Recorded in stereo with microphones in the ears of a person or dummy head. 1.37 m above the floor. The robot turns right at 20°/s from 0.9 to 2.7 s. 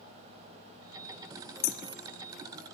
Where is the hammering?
60° left (ahead or behind), 1.0 m; by 1.8 s 55° left (ahead or behind), 1.0 m.